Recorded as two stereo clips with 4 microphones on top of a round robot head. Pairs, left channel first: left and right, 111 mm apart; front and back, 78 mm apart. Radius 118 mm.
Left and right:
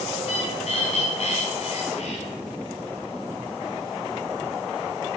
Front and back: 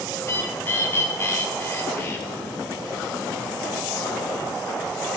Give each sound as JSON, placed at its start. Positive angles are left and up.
{"t": 0.2, "sound": "a bird", "azimuth_deg": 55, "distance_m": 2.0}